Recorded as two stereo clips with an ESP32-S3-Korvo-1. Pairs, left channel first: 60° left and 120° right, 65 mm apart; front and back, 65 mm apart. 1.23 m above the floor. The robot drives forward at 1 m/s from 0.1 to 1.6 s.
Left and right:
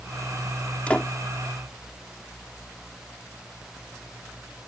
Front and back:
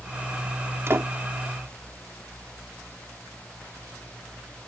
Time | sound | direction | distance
0.9 | a door slam | 130° left | ?